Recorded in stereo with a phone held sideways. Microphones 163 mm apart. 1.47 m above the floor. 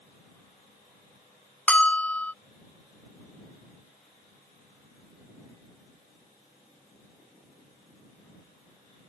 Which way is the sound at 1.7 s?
10° left (ahead or behind).